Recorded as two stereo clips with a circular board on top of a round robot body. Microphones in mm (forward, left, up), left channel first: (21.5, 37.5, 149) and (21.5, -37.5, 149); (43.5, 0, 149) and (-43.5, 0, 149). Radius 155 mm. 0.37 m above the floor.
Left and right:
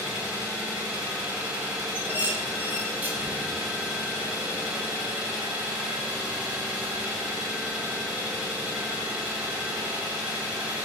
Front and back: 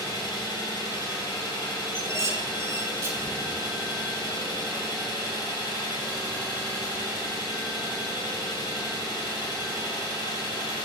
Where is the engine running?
15° right, 1.4 m.